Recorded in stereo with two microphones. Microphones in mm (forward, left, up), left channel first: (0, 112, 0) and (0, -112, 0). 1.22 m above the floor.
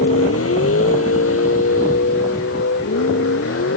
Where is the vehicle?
85° left.